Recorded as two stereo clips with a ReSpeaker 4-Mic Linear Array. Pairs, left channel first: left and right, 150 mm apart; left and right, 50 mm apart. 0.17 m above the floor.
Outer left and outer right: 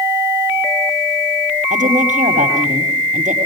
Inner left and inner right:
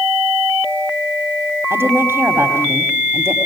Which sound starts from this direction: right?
A woman speaking, at 1.7 s.